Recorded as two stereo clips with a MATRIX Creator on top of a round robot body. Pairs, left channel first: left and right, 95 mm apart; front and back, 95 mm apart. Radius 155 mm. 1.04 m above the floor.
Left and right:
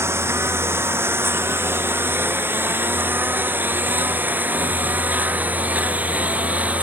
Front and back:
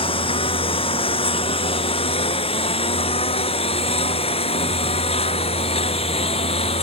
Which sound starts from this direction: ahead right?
A lawn mower, at 0.0 s.